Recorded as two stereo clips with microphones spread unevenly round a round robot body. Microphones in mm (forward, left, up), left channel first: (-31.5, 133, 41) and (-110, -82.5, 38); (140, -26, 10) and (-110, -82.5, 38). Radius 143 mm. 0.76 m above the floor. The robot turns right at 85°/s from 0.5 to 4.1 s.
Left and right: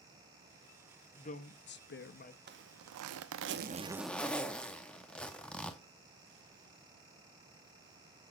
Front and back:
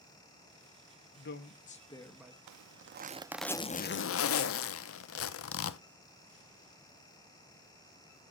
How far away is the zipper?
About 0.7 m.